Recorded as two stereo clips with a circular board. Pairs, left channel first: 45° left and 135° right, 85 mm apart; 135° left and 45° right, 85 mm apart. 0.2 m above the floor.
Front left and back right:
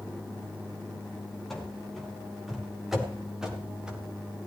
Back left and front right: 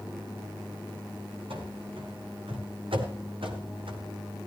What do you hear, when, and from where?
1.5 s running footsteps: 45° right, 5.5 m; by 4.0 s 55° right, 4 m